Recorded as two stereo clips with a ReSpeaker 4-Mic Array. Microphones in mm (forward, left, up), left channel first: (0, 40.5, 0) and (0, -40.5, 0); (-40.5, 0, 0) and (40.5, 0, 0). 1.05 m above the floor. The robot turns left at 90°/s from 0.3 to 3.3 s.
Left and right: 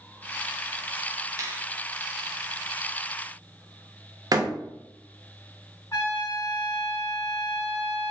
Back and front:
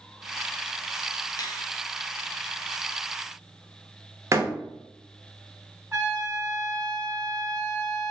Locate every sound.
1.4 s a finger snap: 140° right, 0.6 m; by 1.7 s 165° right, 0.6 m
4.3 s a door slam: 55° right, 0.7 m
5.9 s a trumpet: 50° left, 1.8 m